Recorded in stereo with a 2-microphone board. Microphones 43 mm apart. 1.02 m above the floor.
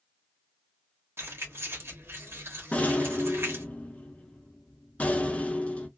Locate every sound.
1.2 s keys jangling: 85° right, 1.2 m
2.7 s a rattle: 30° left (ahead or behind), 0.6 m